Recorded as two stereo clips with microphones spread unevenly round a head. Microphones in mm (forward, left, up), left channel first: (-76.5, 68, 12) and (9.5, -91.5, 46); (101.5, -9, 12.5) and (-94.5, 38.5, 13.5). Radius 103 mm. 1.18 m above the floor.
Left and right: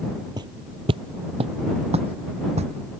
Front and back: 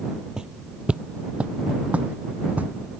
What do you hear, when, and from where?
0.4 s footsteps: 110° right